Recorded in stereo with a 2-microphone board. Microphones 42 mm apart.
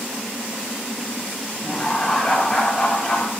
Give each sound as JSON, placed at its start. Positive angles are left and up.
{"t": 1.6, "sound": "laughter", "side_deg": 15, "distance_m": 0.7}